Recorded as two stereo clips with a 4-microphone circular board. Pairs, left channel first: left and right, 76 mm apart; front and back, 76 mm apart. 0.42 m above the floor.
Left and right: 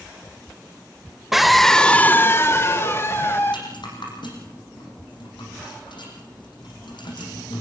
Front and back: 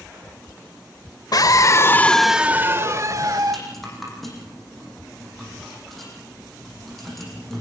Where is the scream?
5° right, 1.3 m; by 3.6 s 145° left, 2 m.